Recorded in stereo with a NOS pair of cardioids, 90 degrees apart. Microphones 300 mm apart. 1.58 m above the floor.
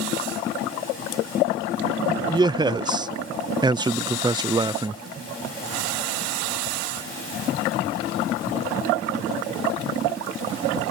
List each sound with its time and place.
2.3 s a man speaking: 15° right